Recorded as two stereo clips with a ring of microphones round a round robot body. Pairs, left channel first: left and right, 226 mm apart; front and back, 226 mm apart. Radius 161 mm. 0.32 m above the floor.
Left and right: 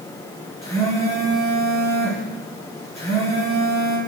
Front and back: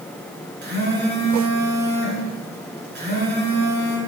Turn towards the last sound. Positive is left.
turn(degrees=140)